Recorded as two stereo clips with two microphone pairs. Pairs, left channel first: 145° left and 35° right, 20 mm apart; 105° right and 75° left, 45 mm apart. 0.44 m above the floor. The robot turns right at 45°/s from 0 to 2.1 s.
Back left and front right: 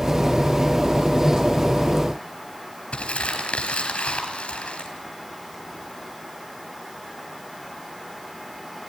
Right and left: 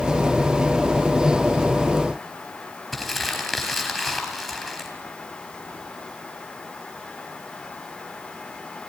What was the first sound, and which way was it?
Crumpling, 170° left.